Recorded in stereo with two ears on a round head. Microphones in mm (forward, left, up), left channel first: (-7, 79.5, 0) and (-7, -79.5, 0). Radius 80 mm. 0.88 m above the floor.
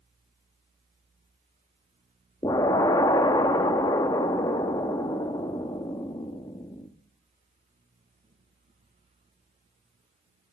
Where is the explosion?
20° left (ahead or behind), 0.6 m.